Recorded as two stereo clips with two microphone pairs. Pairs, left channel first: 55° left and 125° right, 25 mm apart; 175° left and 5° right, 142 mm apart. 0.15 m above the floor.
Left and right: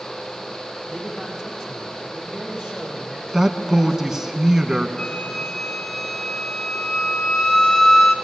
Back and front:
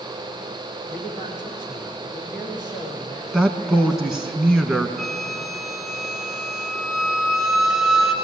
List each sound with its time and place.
0.9 s a man speaking: 110° left, 6 m
3.3 s a man speaking: 80° right, 1.1 m
5.0 s a flute: 80° left, 1.7 m